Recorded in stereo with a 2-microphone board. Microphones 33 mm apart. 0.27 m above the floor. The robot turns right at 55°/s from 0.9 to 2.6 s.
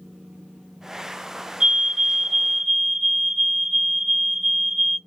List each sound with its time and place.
1.6 s a fire alarm: 40° right, 3 m; by 5.0 s 15° left, 3 m